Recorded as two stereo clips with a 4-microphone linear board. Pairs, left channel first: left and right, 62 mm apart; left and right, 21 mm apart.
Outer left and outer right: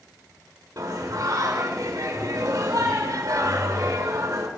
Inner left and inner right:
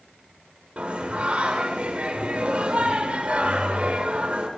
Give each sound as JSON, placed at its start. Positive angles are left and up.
{"t": 0.8, "sound": "singing", "side_deg": -75, "distance_m": 2.5}